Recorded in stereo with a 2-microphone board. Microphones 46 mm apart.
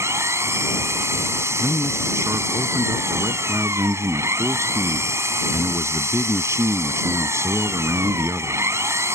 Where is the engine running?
80° right.